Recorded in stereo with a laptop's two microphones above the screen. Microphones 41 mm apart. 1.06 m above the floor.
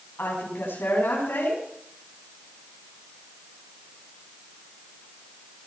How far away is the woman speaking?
About 7.5 m.